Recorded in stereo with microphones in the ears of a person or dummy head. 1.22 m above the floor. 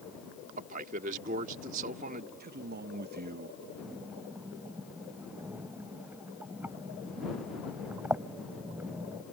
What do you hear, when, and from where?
0.6 s a man speaking: 40° right (ahead or behind)
2.4 s a man speaking: 55° right (ahead or behind)
3.8 s breathing: 15° right (ahead or behind)